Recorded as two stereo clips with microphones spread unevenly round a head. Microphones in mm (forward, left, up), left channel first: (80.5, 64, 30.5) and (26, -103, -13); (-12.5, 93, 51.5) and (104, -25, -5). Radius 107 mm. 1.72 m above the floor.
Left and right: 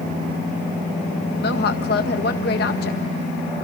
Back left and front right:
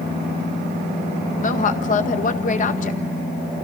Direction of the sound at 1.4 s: 105° left.